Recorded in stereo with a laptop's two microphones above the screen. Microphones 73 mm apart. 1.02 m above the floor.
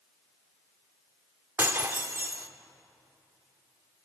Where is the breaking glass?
35° right (ahead or behind), 0.8 m.